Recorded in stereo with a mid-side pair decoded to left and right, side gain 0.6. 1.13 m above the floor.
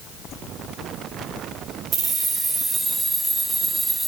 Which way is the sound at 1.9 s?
45° right.